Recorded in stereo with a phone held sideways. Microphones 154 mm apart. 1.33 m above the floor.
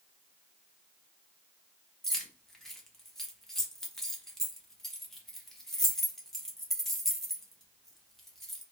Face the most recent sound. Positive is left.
turn(degrees=0)  # may be behind; listen again after turning